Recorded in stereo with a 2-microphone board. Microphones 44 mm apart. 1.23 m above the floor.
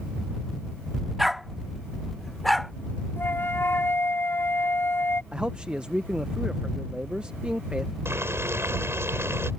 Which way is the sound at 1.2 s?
Centre (ahead or behind).